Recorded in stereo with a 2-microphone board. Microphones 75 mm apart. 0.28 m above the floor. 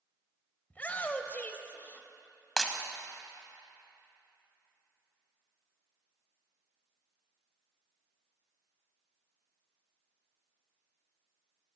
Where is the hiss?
No hiss in this recording.